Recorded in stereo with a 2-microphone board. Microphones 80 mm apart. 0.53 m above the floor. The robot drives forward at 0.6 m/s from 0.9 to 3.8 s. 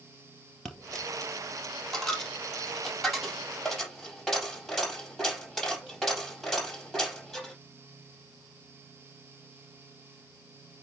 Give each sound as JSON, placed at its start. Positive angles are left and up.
{"t": 0.7, "sound": "a dropped coin", "side_deg": 5, "distance_m": 3.0}